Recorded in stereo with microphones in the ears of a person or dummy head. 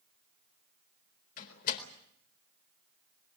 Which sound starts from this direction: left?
A door slam, at 1.4 s.